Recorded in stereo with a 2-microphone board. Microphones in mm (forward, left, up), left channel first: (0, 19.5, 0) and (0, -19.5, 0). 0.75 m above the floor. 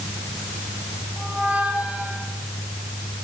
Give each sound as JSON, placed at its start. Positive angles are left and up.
{"t": 1.2, "sound": "a squeak", "side_deg": -45, "distance_m": 8.0}